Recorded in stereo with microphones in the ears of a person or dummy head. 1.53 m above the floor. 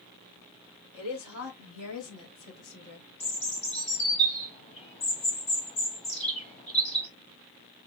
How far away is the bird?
About 1.3 m.